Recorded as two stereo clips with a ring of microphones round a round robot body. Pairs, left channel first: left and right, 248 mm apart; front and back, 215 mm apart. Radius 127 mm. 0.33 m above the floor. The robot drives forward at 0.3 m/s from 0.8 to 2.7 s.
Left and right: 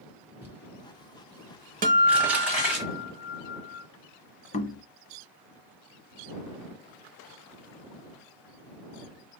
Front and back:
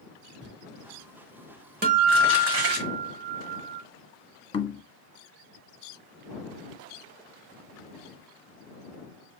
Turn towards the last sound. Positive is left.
turn(degrees=50)